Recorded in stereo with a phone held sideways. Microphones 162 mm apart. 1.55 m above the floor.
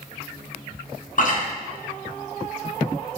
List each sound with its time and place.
1.2 s chewing: 55° left (ahead or behind), 0.7 m